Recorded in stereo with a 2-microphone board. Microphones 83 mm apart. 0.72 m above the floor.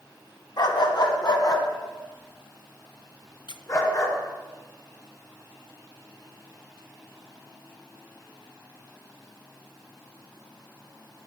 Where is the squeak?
65° left (ahead or behind), 0.7 m.